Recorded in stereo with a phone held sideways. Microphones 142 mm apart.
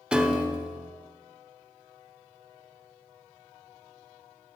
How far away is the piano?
About 0.5 m.